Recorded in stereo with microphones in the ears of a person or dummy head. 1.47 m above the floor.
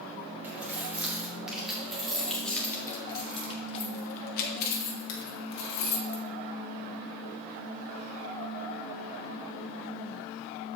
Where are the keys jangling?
10° right (ahead or behind), 3 m; by 6.2 s 60° left (ahead or behind), 2 m.